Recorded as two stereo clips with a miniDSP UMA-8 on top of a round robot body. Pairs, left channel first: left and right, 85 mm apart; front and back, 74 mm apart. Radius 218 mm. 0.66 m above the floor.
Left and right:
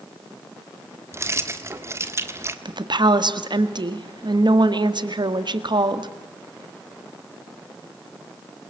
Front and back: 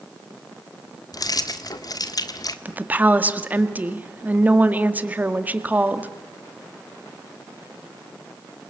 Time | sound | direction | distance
1.1 | keys jangling | 30° right | 1.5 m
2.6 | a woman speaking | 115° right | 2.0 m